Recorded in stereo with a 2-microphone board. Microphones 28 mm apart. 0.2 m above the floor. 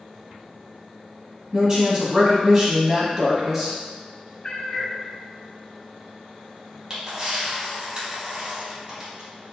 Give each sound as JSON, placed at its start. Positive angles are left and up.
{"t": 1.5, "sound": "a woman speaking", "side_deg": -25, "distance_m": 1.0}
{"t": 4.4, "sound": "a cat meowing", "side_deg": 35, "distance_m": 0.6}
{"t": 6.9, "sound": "a camera shutter", "side_deg": -30, "distance_m": 1.2}